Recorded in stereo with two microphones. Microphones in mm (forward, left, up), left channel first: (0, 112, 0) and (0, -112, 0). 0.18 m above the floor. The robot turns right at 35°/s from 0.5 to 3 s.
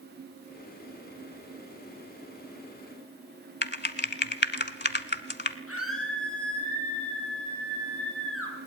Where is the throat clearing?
I don't hear throat clearing.